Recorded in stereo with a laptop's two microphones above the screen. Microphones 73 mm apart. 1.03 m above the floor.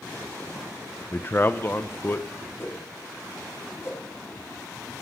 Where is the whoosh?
35° left (ahead or behind), 1.6 m.